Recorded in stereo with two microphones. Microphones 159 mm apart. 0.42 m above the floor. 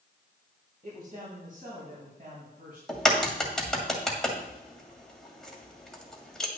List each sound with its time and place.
0.8 s a man speaking: 60° right (ahead or behind), 2.5 m
2.9 s a crack: 5° left (ahead or behind), 2.0 m